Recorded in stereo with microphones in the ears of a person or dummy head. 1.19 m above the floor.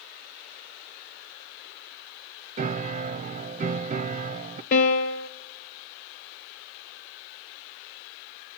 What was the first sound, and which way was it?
A piano, 40° right (ahead or behind).